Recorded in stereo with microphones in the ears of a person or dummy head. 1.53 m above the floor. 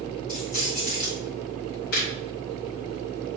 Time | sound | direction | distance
0.3 | keys jangling | 40° left (ahead or behind) | 2.5 m
1.9 | laughter | 55° left (ahead or behind) | 1.7 m